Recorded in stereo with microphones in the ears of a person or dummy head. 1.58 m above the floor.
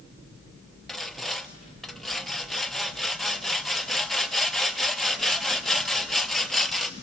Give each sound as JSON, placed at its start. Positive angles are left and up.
{"t": 0.9, "sound": "sawing", "side_deg": 0, "distance_m": 0.5}